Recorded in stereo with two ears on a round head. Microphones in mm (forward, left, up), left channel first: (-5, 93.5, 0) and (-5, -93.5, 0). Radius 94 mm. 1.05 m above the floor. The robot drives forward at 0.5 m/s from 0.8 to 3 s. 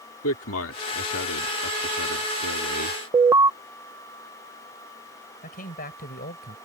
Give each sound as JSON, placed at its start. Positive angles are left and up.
{"t": 0.2, "sound": "a man speaking", "side_deg": 65}
{"t": 3.1, "sound": "an alarm", "side_deg": -15}
{"t": 5.4, "sound": "a man speaking", "side_deg": 40}